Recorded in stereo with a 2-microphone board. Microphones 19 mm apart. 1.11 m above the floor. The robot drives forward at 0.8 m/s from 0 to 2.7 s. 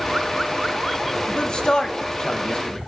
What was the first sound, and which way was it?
A man speaking, 40° left (ahead or behind).